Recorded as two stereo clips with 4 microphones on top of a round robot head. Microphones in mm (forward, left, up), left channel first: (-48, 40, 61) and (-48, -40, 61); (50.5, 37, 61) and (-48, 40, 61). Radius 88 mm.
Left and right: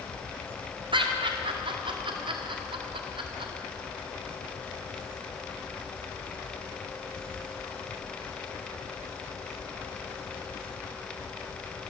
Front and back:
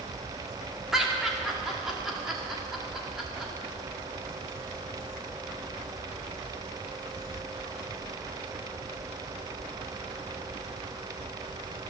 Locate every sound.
0.9 s laughter: 95° right, 2 m